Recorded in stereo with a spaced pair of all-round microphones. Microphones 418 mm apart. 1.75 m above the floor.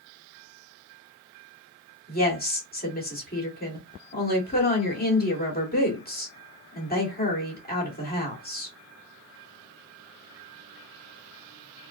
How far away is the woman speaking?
About 1.6 m.